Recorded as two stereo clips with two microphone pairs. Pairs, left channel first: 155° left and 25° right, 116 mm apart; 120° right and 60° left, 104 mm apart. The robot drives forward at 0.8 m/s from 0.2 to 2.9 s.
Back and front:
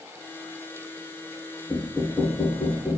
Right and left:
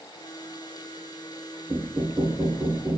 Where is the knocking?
95° left, 1.8 m; by 3.0 s 130° left, 2 m.